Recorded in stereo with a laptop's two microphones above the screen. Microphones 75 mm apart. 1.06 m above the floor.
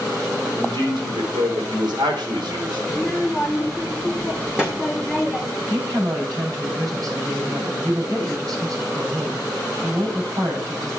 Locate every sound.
0.6 s a man speaking: 75° right (ahead or behind), 4 m
2.9 s a child speaking: 10° right (ahead or behind), 2.0 m
5.6 s a woman speaking: 55° right (ahead or behind), 7.5 m